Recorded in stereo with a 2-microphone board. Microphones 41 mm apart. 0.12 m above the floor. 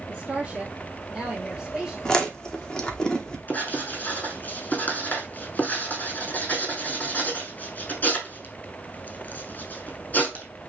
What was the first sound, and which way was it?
A woman speaking, 15° right (ahead or behind).